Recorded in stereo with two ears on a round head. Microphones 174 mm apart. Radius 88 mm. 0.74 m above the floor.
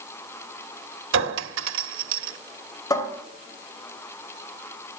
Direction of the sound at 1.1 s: 70° right (ahead or behind).